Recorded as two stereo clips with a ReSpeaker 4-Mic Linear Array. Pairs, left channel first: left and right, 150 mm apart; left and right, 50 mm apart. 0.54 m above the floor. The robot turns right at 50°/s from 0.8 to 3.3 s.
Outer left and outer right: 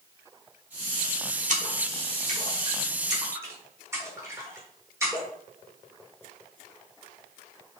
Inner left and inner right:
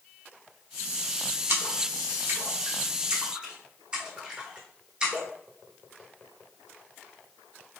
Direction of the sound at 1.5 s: 50° right (ahead or behind).